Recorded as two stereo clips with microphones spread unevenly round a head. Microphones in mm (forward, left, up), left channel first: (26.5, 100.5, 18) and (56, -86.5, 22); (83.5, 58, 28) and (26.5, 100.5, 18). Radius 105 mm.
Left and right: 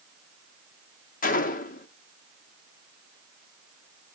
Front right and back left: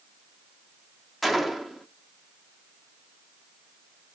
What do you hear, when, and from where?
1.2 s a gunshot: 55° left, 1.2 m